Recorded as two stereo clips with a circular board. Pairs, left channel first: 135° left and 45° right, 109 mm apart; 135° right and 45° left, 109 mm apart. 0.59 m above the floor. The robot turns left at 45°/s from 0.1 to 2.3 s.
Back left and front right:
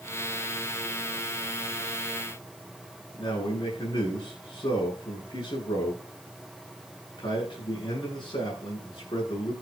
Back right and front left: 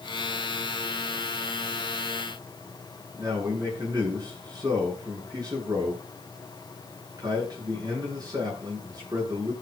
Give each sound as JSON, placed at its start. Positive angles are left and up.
{"t": 3.1, "sound": "a man speaking", "azimuth_deg": 95, "distance_m": 9.5}